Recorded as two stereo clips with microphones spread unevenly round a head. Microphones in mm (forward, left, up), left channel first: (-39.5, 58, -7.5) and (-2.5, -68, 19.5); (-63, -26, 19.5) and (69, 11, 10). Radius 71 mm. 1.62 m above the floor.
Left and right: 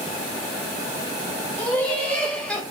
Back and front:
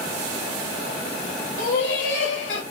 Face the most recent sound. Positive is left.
turn(degrees=-170)